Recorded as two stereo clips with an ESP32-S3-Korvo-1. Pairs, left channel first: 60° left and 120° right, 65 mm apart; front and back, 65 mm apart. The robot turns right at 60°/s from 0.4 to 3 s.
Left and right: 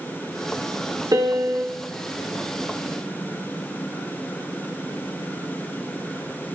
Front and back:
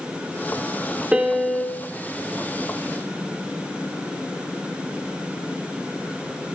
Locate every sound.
1.1 s a piano: 110° right, 0.7 m; by 1.8 s 70° right, 0.7 m